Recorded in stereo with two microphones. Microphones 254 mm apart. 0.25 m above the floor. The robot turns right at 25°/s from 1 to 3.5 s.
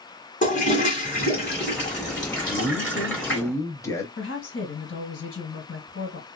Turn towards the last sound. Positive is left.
turn(degrees=55)  # may be behind; listen again after turning